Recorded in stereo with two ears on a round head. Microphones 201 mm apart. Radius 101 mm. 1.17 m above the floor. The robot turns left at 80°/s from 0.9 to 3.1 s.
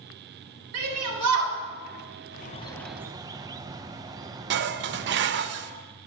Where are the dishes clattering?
50° right (ahead or behind), 0.6 m.